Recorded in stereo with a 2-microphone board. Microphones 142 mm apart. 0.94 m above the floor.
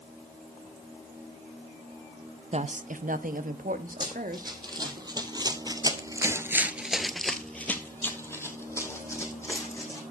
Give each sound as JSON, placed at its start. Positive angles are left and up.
{"t": 2.5, "sound": "a woman speaking", "side_deg": -50, "distance_m": 0.5}
{"t": 4.0, "sound": "running footsteps", "side_deg": -30, "distance_m": 2.5}